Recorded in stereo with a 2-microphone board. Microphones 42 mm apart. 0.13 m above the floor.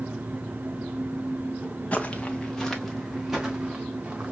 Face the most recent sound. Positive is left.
turn(degrees=-20)  # may be behind; listen again after turning